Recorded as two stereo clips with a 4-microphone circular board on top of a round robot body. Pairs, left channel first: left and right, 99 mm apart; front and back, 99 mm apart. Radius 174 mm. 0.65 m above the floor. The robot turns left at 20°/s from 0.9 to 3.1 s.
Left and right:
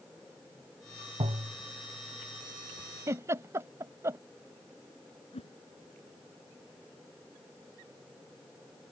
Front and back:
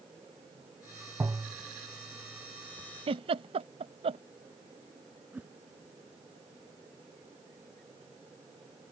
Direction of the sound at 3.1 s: 150° right.